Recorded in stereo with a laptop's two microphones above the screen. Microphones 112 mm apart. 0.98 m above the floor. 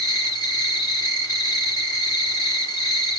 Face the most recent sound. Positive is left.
turn(degrees=35)  # may be behind; listen again after turning